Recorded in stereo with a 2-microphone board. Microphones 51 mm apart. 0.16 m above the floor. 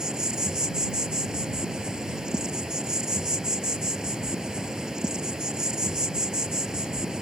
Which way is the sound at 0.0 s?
15° right (ahead or behind).